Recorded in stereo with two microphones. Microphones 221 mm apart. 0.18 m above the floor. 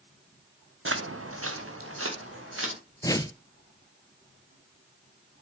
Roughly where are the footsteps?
Right.